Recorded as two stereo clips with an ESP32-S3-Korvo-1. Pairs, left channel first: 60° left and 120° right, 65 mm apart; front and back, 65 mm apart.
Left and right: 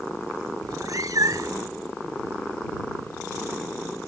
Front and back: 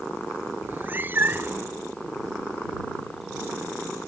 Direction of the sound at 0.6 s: 125° right.